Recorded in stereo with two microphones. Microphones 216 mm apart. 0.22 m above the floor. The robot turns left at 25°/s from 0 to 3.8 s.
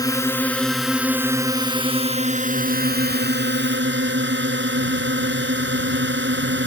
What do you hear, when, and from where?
0.0 s a drone: 20° left; by 6.7 s 75° right